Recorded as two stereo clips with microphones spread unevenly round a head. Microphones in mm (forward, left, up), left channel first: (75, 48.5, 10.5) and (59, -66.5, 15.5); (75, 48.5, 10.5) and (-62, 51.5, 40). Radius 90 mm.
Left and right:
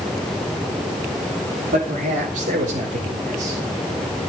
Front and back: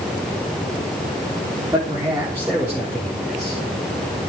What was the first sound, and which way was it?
A man speaking, 110° right.